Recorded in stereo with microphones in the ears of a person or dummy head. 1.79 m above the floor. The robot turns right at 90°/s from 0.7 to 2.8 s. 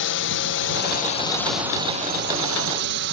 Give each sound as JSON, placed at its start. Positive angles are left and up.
{"t": 0.0, "sound": "a drone", "side_deg": 60}